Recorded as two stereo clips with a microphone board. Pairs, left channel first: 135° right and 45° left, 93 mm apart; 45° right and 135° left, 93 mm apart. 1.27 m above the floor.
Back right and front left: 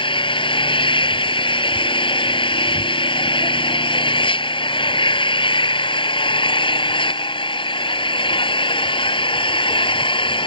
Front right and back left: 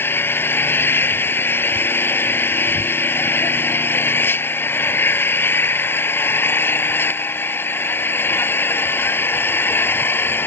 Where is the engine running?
110° right.